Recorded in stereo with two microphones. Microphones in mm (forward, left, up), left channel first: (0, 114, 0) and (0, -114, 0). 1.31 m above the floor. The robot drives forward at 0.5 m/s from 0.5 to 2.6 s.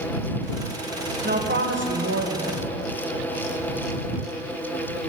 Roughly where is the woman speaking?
Right.